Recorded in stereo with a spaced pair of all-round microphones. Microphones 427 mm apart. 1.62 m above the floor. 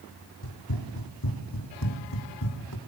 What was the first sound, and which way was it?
Running footsteps, 55° left (ahead or behind).